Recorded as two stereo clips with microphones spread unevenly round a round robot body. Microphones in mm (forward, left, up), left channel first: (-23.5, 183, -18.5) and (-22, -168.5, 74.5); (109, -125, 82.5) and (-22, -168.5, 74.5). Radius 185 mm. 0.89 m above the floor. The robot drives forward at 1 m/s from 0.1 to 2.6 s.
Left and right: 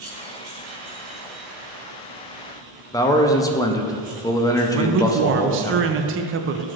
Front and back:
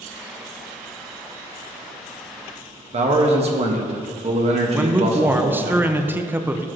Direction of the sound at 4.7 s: 125° right.